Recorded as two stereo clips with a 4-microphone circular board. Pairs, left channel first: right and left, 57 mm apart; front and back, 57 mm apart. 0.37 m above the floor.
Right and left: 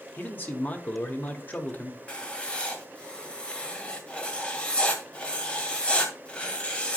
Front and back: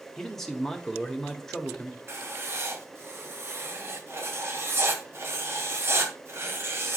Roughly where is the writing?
Behind right.